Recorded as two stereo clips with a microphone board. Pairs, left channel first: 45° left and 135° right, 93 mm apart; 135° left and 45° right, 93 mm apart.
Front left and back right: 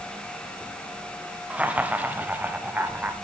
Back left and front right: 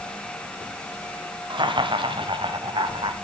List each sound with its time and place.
1.5 s laughter: 60° right, 2 m; by 3.1 s 65° right, 3.5 m